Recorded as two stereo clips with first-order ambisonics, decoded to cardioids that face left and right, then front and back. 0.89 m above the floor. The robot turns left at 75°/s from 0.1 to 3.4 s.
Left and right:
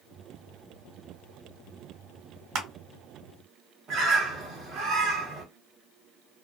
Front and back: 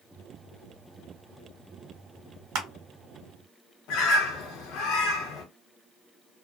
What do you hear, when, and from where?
2.5 s crushing: 135° right, 1.0 m; by 2.7 s 145° right, 1.0 m
3.9 s a bird: 35° right, 0.8 m